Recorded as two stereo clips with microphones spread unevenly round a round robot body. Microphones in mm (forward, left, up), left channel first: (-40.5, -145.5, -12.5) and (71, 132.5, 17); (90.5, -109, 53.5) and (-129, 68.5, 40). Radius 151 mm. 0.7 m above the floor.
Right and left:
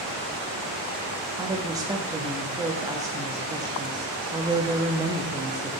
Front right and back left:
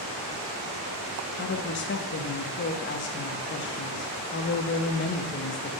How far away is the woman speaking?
About 0.7 m.